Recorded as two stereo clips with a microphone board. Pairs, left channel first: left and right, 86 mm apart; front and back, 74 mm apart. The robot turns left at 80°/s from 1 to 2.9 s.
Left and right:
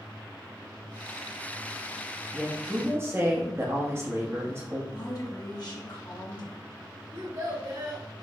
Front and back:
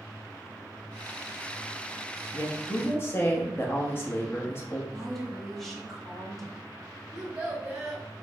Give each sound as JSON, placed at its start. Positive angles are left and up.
{"t": 2.3, "sound": "a woman speaking", "azimuth_deg": 5, "distance_m": 1.1}
{"t": 4.9, "sound": "a woman speaking", "azimuth_deg": 85, "distance_m": 1.3}
{"t": 7.1, "sound": "a child speaking", "azimuth_deg": -110, "distance_m": 1.9}